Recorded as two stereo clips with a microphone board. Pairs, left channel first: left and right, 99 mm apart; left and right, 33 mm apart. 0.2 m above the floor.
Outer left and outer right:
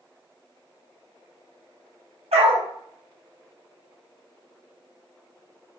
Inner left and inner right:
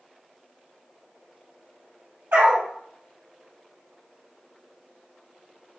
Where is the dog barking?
80° right, 2.5 m.